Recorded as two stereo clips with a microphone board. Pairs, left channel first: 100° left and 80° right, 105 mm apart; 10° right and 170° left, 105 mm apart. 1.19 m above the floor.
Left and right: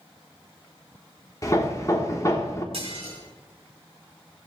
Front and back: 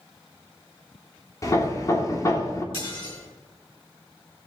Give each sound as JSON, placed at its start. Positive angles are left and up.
{"t": 1.4, "sound": "hammering", "azimuth_deg": 45, "distance_m": 1.2}
{"t": 2.7, "sound": "dishes clattering", "azimuth_deg": -50, "distance_m": 3.5}